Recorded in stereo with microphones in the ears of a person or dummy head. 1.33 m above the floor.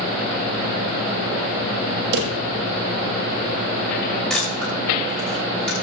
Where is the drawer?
70° right (ahead or behind), 1.3 m.